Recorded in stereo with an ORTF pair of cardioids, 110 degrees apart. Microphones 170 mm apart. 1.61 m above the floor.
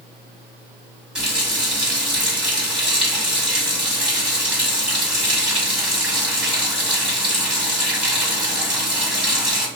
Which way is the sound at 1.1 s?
5° right.